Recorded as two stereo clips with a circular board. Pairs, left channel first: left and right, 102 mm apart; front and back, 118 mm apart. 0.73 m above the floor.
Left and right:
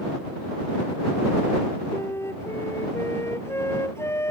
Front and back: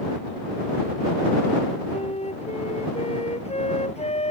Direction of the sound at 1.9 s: 25° left.